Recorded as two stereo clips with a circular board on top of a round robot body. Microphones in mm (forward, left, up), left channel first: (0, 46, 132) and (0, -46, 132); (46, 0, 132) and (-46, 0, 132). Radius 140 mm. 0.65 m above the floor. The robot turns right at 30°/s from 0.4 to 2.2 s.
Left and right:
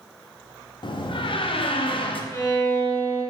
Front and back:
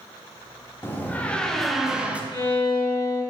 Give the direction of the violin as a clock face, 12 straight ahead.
11 o'clock.